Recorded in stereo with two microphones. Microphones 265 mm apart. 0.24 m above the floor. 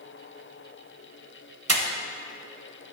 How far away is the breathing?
About 0.7 m.